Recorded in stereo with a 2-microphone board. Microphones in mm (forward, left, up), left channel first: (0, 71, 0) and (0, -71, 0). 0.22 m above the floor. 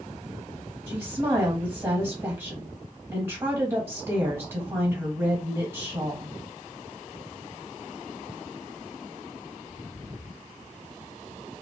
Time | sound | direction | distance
0.9 | a woman speaking | 15° right (ahead or behind) | 1.3 m